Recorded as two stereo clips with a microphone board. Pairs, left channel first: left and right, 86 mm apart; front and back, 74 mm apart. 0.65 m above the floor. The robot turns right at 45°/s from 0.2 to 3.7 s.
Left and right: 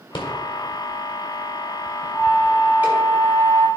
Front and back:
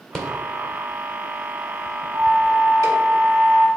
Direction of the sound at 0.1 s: 85° left.